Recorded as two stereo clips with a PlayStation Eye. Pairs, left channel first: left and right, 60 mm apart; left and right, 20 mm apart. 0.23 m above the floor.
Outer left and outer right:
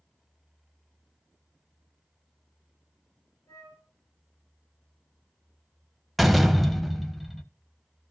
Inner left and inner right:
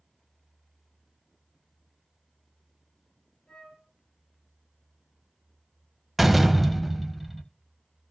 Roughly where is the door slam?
Centre.